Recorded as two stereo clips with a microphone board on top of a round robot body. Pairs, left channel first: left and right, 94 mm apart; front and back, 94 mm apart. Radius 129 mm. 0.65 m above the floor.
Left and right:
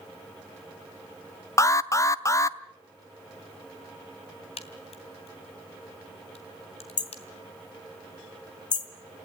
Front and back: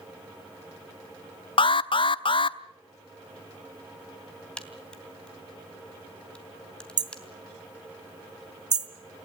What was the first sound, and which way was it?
An alarm, 30° left.